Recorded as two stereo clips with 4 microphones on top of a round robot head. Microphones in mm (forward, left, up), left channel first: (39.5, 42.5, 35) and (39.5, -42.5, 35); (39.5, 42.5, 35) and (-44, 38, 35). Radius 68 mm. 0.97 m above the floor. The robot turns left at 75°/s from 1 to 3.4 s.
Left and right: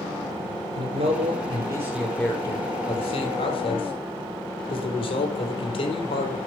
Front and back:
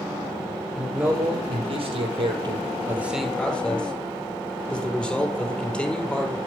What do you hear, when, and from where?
0.8 s a man speaking: 95° right, 4 m; by 6.4 s 85° left, 4 m